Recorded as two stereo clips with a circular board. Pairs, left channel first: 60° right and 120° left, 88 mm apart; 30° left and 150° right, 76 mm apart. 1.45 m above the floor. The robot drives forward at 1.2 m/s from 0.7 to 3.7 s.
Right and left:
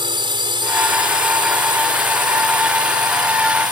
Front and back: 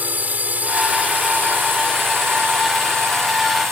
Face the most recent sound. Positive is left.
turn(degrees=155)